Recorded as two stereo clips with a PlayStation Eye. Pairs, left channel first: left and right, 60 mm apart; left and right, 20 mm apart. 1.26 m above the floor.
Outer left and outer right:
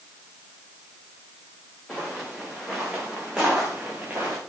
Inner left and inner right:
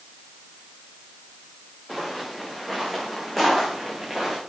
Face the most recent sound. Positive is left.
turn(degrees=-25)  # may be behind; listen again after turning